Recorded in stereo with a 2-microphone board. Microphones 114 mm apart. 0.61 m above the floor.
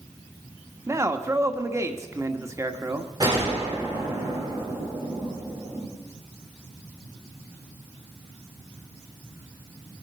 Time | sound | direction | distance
0.9 | a man speaking | 25° right (ahead or behind) | 1.3 m
3.2 | a gunshot | 35° right (ahead or behind) | 9 m